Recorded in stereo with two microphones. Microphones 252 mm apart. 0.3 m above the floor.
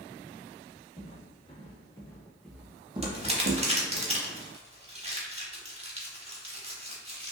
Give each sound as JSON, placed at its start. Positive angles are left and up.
{"t": 1.0, "sound": "footsteps", "side_deg": 25, "distance_m": 1.4}
{"t": 3.0, "sound": "crumpling", "side_deg": -25, "distance_m": 0.6}